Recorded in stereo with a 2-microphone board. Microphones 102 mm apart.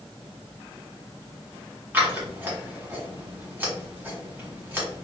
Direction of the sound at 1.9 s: 20° right (ahead or behind).